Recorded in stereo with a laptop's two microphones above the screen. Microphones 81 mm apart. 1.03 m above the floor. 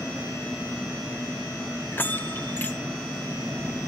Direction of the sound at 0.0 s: 5° right (ahead or behind).